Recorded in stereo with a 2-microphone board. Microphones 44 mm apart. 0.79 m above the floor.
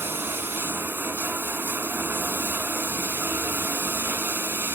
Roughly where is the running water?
Right.